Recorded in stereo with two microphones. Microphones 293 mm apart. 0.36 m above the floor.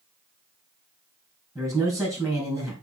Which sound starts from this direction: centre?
A man speaking, at 1.6 s.